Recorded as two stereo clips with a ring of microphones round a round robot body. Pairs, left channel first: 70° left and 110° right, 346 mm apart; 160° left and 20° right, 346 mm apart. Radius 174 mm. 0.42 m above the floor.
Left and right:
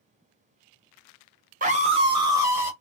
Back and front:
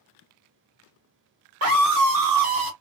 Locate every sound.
1.6 s a scream: 55° right, 1.1 m; by 2.7 s 30° right, 1.8 m